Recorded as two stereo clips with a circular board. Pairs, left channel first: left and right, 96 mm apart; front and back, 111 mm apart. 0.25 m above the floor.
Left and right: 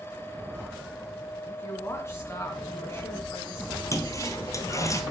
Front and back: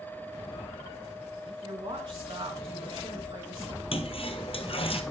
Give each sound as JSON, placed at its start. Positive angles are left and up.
{"t": 1.4, "sound": "a woman speaking", "azimuth_deg": 145, "distance_m": 2.0}
{"t": 3.9, "sound": "a toilet flushing", "azimuth_deg": 30, "distance_m": 1.2}